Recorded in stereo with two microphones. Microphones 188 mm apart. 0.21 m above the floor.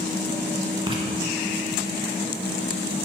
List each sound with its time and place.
0.9 s writing: 25° right (ahead or behind), 0.9 m